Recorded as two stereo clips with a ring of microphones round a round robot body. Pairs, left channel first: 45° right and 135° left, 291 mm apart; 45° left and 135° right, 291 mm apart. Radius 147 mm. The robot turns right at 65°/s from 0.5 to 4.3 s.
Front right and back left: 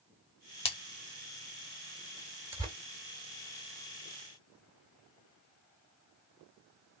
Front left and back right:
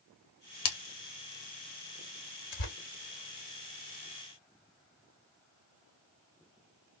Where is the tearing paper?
55° left, 1.6 m; by 2.8 s 65° left, 1.6 m.